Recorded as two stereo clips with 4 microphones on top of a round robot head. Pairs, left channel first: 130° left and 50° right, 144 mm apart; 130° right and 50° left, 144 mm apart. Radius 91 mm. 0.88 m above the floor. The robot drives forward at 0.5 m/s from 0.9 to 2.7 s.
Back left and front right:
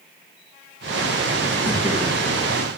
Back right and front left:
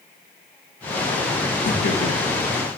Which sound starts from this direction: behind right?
Laughter, at 1.6 s.